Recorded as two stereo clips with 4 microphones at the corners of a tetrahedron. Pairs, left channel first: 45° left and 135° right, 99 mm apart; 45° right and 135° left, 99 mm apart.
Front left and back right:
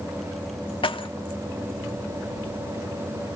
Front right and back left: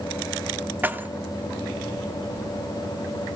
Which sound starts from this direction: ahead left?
Keys jangling, at 0.8 s.